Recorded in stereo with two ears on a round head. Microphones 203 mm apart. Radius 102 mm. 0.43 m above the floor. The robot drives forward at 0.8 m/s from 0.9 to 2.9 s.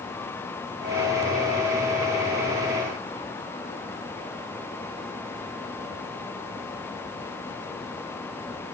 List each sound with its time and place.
Only background noise.